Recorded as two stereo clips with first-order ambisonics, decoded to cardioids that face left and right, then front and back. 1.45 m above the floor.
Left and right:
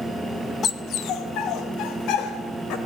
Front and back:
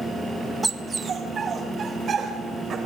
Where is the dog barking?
120° left, 0.9 m.